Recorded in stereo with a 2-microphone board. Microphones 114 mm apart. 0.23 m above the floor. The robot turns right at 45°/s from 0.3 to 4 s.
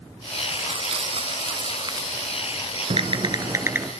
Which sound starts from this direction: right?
Crumpling, at 0.5 s.